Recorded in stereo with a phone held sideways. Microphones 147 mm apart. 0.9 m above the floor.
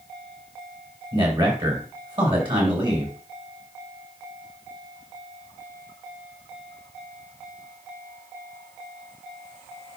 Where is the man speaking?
40° right (ahead or behind), 6 m.